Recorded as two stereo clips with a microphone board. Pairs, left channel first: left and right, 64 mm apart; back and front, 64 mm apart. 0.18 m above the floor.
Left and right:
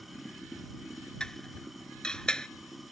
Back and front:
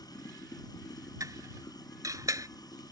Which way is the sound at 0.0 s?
Straight behind.